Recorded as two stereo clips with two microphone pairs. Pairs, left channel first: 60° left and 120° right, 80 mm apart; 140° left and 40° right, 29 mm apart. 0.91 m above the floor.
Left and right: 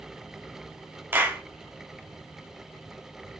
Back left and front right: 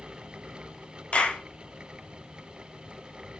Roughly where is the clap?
Behind.